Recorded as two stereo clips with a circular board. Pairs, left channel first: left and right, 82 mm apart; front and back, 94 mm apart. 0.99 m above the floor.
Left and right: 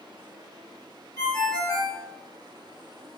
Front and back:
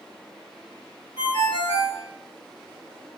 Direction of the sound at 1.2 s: 125° right.